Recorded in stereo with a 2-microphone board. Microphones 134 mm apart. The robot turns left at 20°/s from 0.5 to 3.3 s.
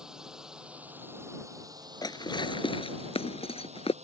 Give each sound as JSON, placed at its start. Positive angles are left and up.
{"t": 0.0, "sound": "a drone", "azimuth_deg": -5}
{"t": 2.0, "sound": "dishes clattering", "side_deg": 30}